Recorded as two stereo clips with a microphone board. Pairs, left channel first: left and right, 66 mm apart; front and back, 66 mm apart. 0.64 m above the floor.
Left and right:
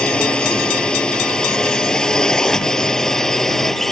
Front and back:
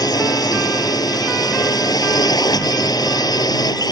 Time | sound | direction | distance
0.0 | a drone | 15° left | ?